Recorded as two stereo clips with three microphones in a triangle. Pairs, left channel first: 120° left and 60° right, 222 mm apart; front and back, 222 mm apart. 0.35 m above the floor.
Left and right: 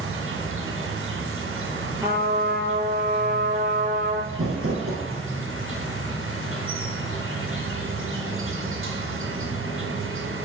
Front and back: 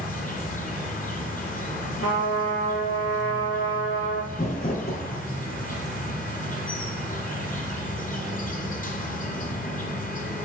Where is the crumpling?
50° right, 1.9 m.